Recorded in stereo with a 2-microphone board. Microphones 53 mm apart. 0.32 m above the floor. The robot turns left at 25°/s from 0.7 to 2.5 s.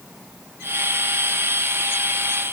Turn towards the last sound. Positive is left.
No sound to turn to.